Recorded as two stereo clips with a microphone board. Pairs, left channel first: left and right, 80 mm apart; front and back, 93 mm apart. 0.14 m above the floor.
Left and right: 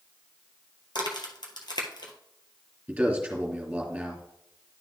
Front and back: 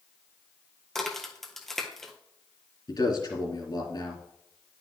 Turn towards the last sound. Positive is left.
turn(degrees=-15)